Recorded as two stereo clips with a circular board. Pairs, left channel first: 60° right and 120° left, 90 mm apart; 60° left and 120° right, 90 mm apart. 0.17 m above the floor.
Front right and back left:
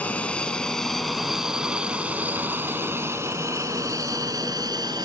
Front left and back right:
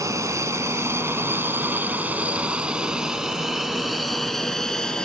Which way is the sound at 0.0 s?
125° right.